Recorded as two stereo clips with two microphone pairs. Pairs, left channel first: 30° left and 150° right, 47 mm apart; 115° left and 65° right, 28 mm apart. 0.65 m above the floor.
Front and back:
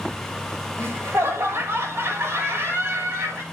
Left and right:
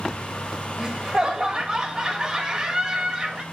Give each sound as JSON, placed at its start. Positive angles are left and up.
{"t": 0.8, "sound": "laughter", "azimuth_deg": -130, "distance_m": 2.5}